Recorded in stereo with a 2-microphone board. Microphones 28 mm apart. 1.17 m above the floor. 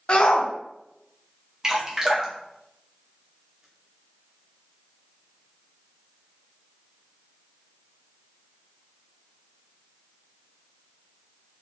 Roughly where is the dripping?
Right.